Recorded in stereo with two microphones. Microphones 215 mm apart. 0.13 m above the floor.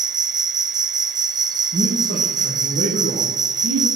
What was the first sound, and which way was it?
An insect, 20° right (ahead or behind).